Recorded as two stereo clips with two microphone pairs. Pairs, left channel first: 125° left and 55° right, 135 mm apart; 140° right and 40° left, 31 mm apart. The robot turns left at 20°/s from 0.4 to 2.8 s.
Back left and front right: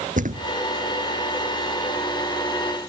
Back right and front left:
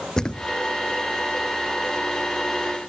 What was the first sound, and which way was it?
A thud, 70° right.